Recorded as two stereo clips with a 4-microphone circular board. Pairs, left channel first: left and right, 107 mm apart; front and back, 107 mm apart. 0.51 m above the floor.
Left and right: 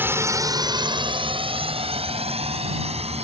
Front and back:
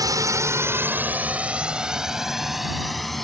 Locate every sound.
0.0 s a drone: 150° right; by 3.2 s 85° right